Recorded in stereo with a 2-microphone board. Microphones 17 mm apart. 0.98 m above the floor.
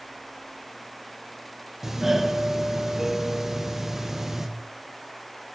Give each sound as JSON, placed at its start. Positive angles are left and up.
{"t": 1.8, "sound": "a doorbell", "side_deg": -25, "distance_m": 0.9}